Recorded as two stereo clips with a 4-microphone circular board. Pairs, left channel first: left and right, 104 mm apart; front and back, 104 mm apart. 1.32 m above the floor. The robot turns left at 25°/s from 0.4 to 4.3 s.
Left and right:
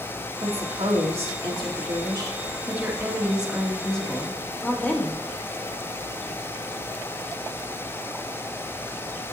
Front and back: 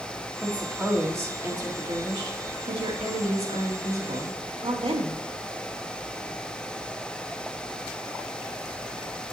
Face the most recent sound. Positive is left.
turn(degrees=165)